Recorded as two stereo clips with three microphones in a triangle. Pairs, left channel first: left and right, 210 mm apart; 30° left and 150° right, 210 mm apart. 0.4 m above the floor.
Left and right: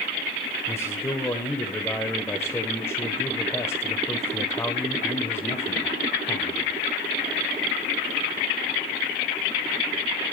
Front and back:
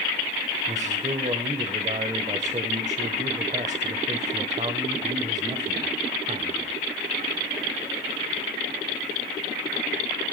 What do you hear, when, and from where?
0.7 s a man speaking: 165° left, 1.2 m